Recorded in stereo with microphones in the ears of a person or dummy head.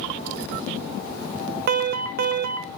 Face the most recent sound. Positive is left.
turn(degrees=-50)  # may be behind; listen again after turning